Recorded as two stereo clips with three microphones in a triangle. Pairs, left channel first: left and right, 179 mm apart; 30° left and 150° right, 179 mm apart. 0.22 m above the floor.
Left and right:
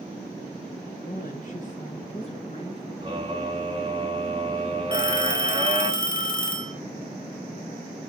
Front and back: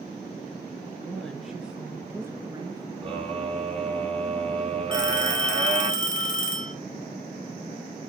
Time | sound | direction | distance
1.0 | a woman speaking | 110° left | 3.5 m
3.0 | a scream | 125° right | 1.5 m
4.9 | a phone ringing | 65° left | 4 m